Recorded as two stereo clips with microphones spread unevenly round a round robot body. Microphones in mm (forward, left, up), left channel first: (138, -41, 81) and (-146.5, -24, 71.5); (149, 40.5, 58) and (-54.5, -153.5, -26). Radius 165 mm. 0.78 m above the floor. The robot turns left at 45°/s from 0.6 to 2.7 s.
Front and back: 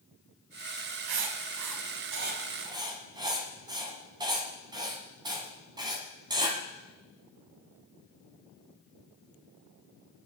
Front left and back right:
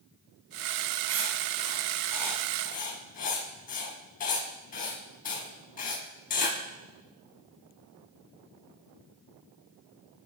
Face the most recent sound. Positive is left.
turn(degrees=100)